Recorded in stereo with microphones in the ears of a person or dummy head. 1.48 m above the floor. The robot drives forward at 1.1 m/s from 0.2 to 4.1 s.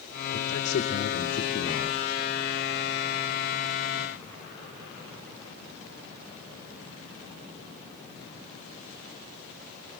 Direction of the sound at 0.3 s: 70° left (ahead or behind).